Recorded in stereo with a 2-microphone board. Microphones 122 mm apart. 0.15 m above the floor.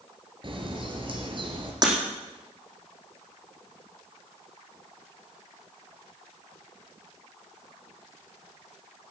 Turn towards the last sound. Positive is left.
turn(degrees=-35)  # may be behind; listen again after turning